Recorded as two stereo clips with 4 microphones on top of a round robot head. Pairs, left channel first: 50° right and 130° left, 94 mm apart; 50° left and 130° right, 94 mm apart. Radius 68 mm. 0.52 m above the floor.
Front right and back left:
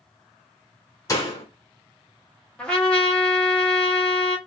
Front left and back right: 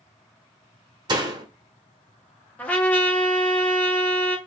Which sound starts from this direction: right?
A door slam, at 1.1 s.